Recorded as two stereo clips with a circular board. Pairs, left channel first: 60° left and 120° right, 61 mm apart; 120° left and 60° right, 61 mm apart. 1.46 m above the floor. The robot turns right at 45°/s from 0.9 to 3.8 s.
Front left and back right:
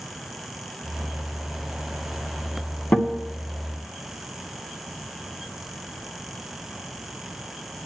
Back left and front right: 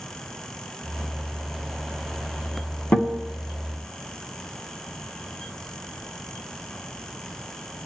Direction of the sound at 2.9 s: 85° left.